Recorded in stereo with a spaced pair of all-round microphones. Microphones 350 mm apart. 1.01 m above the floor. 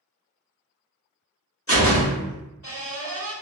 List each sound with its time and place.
1.7 s a door slam: 40° left (ahead or behind), 1.3 m